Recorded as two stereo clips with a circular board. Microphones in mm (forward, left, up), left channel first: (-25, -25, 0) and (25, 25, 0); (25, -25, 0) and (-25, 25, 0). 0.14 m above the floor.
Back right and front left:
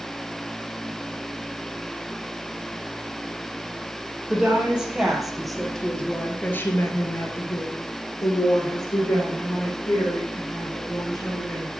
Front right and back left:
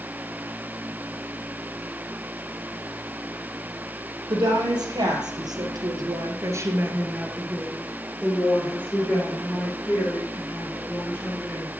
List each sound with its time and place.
4.3 s a woman speaking: 120° left, 4 m; by 11.7 s 100° right, 7 m